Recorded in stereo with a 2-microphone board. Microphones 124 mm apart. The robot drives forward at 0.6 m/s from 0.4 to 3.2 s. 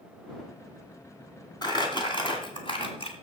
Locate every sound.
1.6 s crumpling: 35° left (ahead or behind), 2.5 m; by 3.1 s 50° left (ahead or behind), 1.8 m